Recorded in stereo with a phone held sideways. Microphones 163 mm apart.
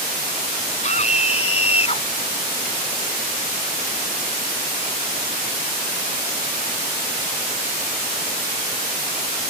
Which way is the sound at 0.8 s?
45° left (ahead or behind).